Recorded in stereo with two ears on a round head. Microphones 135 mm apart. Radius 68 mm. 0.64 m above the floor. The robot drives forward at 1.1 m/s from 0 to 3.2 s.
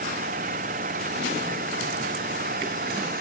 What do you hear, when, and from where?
0.0 s an engine running: 55° right (ahead or behind); by 3.2 s 60° right (ahead or behind)